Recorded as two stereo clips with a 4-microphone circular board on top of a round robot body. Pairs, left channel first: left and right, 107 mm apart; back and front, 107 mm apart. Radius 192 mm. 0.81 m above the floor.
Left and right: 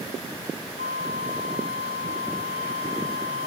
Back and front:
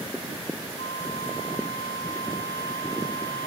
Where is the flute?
120° right, 1.4 m.